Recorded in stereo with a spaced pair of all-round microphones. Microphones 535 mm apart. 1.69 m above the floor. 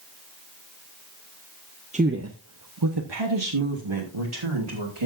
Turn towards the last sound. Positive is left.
turn(degrees=-65)  # may be behind; listen again after turning